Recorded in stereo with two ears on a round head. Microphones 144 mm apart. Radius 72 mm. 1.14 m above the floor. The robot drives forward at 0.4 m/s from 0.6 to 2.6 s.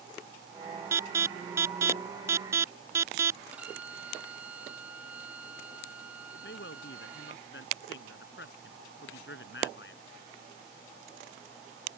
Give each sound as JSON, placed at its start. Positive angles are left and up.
{"t": 0.9, "sound": "an alarm", "side_deg": -15}
{"t": 3.5, "sound": "a violin", "side_deg": -10}
{"t": 6.3, "sound": "a man speaking", "side_deg": 75}